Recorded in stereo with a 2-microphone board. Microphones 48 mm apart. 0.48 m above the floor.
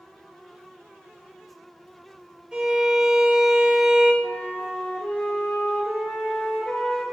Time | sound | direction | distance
2.5 | a violin | 25° right (ahead or behind) | 1.6 m
4.2 | a flute | 30° left (ahead or behind) | 1.2 m